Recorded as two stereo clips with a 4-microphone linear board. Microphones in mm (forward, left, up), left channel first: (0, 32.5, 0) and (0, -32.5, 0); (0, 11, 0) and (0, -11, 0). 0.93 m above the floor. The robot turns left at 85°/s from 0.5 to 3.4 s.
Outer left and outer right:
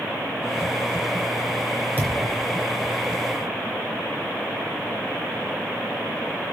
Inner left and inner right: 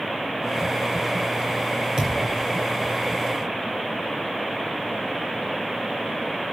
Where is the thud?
25° right (ahead or behind), 4 m; by 2.4 s 60° right (ahead or behind), 4 m.